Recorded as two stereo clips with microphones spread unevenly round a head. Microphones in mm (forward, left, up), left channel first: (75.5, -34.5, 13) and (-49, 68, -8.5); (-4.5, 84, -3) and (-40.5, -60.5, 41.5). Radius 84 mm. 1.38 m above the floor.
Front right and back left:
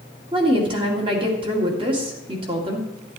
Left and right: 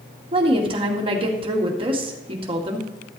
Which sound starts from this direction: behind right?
A woman speaking, at 0.3 s.